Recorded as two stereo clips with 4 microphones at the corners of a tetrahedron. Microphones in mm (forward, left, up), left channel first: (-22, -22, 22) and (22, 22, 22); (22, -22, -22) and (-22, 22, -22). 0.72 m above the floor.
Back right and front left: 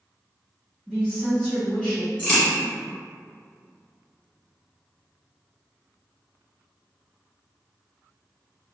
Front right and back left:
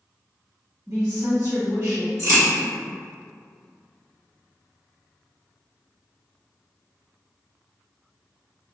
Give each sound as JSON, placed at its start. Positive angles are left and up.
{"t": 0.9, "sound": "a woman speaking", "azimuth_deg": 155, "distance_m": 1.8}
{"t": 2.2, "sound": "a crack", "azimuth_deg": 155, "distance_m": 1.7}